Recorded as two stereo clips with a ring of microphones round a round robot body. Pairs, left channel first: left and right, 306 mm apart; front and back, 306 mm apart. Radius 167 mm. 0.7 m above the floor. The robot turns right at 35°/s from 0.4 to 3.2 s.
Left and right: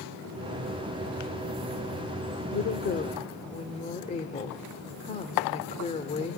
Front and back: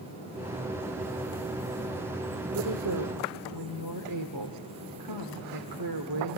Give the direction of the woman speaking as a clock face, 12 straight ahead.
8 o'clock.